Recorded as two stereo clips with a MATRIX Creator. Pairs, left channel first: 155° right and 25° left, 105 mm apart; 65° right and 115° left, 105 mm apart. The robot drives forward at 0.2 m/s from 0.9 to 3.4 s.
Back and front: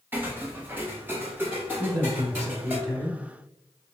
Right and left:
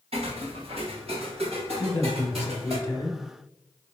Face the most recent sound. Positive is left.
turn(degrees=-30)